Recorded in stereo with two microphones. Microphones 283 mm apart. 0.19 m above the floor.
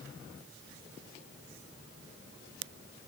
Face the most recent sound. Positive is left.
No sound to turn to.